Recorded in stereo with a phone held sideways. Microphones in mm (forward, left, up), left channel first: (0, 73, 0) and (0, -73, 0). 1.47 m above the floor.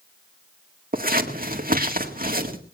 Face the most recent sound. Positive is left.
turn(degrees=-70)  # may be behind; listen again after turning